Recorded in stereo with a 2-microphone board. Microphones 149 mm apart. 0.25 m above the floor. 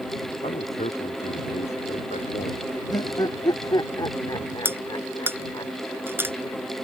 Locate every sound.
0.4 s a man speaking: 50° left (ahead or behind); by 2.7 s 55° left (ahead or behind)
2.9 s laughter: 30° left (ahead or behind)
4.7 s cutlery clinking: 15° right (ahead or behind)